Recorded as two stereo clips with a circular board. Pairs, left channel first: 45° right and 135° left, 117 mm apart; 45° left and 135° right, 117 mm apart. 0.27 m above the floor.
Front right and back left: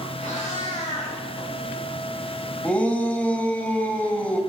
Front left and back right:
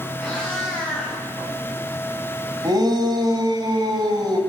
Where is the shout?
115° right, 1.5 m.